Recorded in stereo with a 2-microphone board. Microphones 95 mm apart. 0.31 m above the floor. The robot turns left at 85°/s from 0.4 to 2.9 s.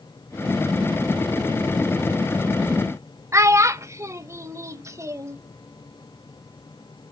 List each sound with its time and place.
3.3 s a child speaking: 30° right (ahead or behind), 0.6 m